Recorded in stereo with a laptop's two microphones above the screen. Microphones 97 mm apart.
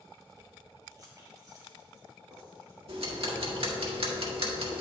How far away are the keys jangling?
About 0.7 m.